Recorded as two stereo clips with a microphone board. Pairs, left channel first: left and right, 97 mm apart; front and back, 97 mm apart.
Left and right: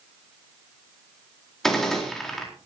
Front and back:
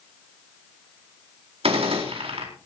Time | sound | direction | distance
1.6 | a gunshot | 175° left | 4 m